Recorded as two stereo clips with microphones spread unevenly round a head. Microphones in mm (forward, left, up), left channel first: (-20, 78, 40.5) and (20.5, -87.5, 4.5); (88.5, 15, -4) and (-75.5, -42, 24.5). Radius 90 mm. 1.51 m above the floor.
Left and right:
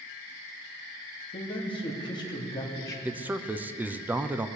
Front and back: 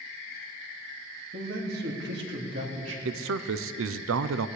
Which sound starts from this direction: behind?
A man speaking, at 1.3 s.